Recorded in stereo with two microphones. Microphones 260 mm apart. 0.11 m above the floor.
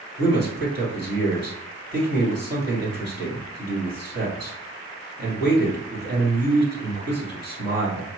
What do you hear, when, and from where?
0.2 s a man speaking: 40° right (ahead or behind), 1.9 m